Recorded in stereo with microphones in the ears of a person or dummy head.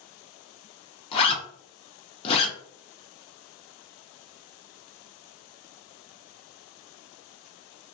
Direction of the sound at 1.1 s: 30° left (ahead or behind).